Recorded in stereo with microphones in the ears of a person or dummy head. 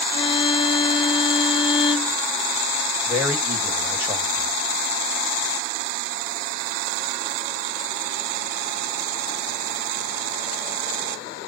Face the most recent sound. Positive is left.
turn(degrees=-10)  # may be behind; listen again after turning